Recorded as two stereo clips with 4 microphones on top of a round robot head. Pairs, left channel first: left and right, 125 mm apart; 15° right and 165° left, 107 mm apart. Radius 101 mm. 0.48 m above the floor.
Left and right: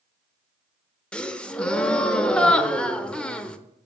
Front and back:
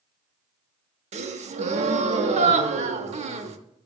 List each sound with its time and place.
1.1 s a gasp: 175° left, 0.6 m